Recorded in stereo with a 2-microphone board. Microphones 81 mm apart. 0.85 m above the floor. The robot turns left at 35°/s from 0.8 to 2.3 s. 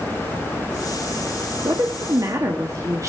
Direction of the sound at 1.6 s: 60° right (ahead or behind).